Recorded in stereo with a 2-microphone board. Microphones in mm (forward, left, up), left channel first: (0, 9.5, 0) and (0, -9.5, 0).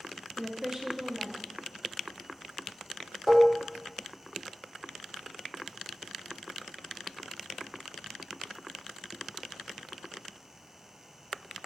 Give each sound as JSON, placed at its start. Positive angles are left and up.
{"t": 0.4, "sound": "a woman speaking", "side_deg": -25, "distance_m": 1.1}
{"t": 3.3, "sound": "dishes clattering", "side_deg": -5, "distance_m": 1.0}